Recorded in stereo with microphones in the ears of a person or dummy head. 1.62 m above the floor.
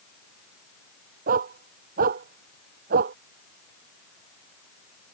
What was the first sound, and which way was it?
A dog barking, 45° right (ahead or behind).